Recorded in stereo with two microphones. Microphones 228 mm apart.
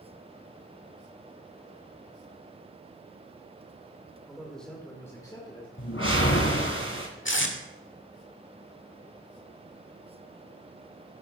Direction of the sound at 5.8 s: 75° left (ahead or behind).